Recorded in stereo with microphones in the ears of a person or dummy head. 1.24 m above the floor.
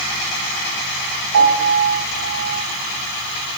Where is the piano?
75° right (ahead or behind), 3.5 m.